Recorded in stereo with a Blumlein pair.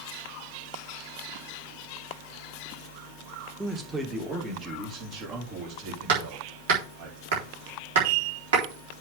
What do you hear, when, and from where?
3.6 s a man speaking: 5° right, 1.9 m; by 7.1 s 50° right, 5 m
6.1 s hammering: 60° right, 3.5 m